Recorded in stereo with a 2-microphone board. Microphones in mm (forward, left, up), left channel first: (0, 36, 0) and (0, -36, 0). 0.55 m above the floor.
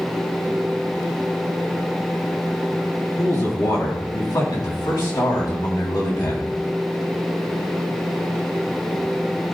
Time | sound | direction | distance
3.2 | a man speaking | 65° left (ahead or behind) | 4.5 m